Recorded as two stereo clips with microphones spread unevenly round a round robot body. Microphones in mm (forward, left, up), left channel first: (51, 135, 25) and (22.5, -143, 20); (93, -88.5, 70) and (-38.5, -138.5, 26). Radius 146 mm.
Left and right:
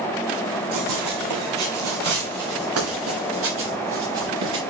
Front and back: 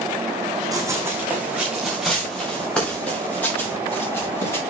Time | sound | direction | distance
0.7 | running footsteps | 90° right | 3 m